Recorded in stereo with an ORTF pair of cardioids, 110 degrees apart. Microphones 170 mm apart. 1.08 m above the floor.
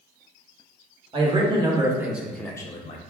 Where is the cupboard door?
I don't hear a cupboard door.